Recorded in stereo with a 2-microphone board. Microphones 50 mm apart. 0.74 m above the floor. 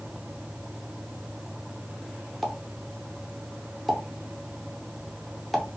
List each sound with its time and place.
2.4 s a pop: centre (ahead or behind), 0.6 m